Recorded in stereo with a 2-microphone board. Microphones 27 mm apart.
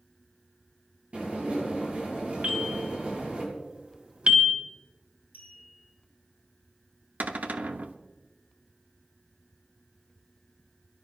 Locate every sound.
1.1 s dishes clattering: 50° right (ahead or behind), 8 m
2.4 s a bell: 45° right (ahead or behind), 1.9 m
5.3 s a clink: 80° right, 7 m
7.2 s a cupboard door: 65° right (ahead or behind), 0.8 m